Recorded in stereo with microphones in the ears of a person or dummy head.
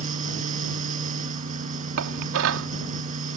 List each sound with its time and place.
0.0 s a fan: 50° right (ahead or behind)
2.0 s dishes clattering: 70° right (ahead or behind)